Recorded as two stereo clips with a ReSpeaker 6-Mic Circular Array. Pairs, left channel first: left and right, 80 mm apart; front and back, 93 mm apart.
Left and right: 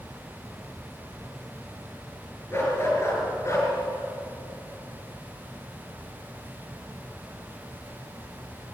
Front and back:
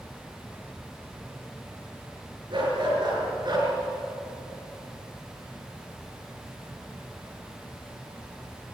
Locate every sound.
2.5 s a dog barking: 150° left, 5 m; by 3.7 s 140° left, 4 m